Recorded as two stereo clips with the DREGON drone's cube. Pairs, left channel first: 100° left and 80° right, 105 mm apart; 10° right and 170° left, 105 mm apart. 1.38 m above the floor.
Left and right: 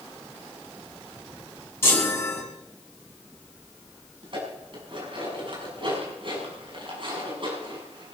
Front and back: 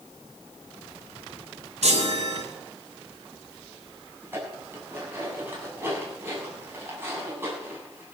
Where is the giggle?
No giggle in this recording.